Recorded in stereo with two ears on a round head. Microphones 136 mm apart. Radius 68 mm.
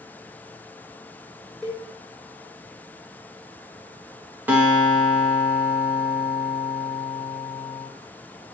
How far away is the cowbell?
About 1.6 m.